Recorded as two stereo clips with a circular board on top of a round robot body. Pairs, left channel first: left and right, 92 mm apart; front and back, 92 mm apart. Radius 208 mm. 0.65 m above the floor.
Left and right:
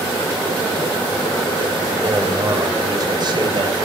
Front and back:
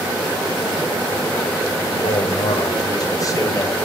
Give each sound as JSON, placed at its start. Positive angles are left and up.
{"t": 1.9, "sound": "a man speaking", "azimuth_deg": -25, "distance_m": 4.0}